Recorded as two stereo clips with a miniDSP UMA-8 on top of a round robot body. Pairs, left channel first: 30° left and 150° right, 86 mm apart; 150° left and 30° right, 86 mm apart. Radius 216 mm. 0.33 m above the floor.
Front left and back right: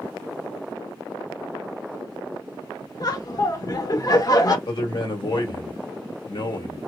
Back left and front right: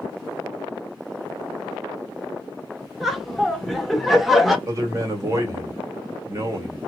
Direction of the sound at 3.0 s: 60° left.